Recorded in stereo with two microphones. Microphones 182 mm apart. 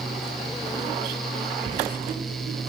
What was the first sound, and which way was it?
Writing, 45° right (ahead or behind).